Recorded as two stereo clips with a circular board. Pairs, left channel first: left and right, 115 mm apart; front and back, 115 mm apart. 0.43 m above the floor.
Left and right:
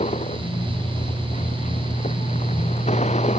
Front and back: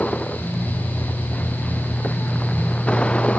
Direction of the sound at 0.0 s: 80° left.